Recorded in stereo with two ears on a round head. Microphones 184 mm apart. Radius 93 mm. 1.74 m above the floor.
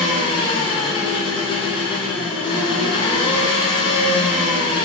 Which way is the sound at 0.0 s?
25° left (ahead or behind).